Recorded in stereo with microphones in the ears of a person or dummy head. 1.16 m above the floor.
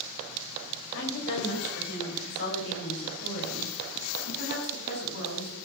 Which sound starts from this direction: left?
A woman speaking, at 0.9 s.